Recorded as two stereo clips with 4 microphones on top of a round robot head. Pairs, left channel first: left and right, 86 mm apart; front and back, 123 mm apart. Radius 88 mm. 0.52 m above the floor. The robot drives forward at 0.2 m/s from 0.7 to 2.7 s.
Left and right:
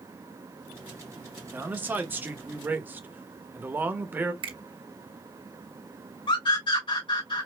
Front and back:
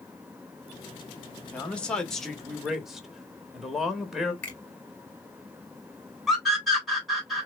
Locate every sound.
1.5 s a man speaking: 65° right, 1.1 m; by 4.3 s 100° right, 1.1 m
4.4 s a finger snap: 85° right, 2 m
6.3 s a scream: 90° left, 3 m